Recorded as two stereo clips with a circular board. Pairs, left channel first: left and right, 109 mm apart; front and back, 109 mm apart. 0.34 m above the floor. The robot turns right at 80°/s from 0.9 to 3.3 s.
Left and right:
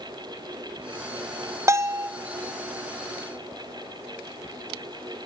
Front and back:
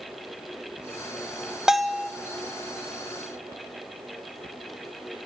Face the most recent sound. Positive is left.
turn(degrees=30)